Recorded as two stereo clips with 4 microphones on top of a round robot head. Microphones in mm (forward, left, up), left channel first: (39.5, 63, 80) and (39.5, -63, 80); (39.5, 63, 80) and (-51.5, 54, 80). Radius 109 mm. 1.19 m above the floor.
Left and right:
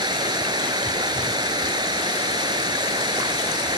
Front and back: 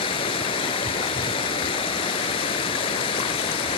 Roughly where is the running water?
Ahead right.